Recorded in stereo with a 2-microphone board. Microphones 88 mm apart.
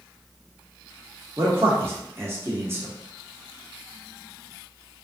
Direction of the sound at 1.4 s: 25° right (ahead or behind).